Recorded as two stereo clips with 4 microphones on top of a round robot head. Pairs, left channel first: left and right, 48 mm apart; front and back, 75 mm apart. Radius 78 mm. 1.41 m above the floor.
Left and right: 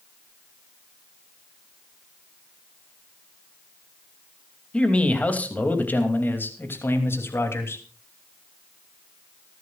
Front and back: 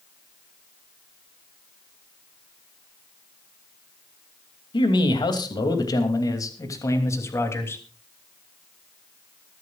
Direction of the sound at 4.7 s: 20° left.